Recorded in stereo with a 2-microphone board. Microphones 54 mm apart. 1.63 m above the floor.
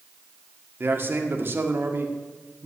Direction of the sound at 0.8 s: 40° right (ahead or behind).